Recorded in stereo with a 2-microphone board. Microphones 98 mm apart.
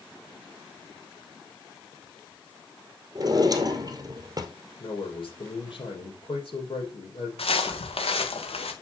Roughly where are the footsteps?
Left.